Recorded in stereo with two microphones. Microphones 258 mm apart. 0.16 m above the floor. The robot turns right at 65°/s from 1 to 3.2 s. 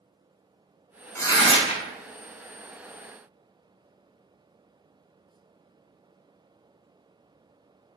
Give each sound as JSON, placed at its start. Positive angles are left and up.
{"t": 1.1, "sound": "tearing paper", "azimuth_deg": 20, "distance_m": 0.7}